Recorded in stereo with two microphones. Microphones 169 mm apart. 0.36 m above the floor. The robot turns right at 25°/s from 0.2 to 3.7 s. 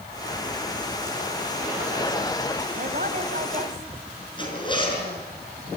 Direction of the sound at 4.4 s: 30° left (ahead or behind).